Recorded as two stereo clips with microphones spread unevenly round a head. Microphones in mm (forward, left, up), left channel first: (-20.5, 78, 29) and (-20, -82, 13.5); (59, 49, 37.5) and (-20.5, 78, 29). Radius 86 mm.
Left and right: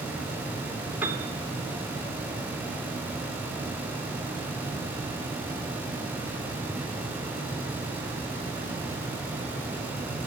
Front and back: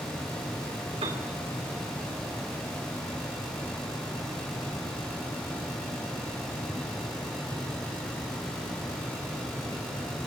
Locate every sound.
1.0 s a piano: 170° right, 2.0 m